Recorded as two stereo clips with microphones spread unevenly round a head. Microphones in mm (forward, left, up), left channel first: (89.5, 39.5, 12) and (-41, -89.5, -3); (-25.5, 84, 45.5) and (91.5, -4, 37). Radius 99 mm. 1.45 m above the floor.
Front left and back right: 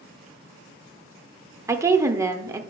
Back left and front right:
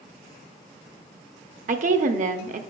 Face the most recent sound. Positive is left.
turn(degrees=-65)